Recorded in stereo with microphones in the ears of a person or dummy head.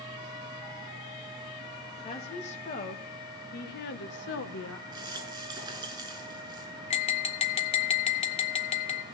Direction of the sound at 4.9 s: 20° right (ahead or behind).